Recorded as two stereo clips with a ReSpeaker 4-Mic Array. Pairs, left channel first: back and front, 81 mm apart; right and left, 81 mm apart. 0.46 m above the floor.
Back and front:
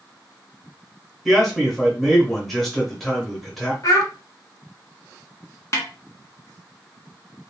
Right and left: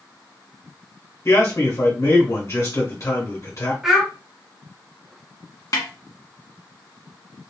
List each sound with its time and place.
1.2 s a man speaking: 95° right, 1.6 m
3.8 s a child speaking: 175° left, 1.2 m
5.7 s a snare drum: 135° right, 1.0 m